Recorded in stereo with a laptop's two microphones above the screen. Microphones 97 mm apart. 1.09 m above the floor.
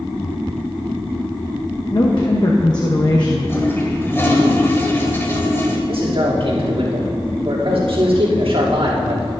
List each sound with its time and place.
1.9 s a woman speaking: 45° left (ahead or behind), 0.8 m
3.5 s a toilet flushing: 25° left (ahead or behind), 1.7 m
5.9 s a man speaking: 70° right (ahead or behind), 2.5 m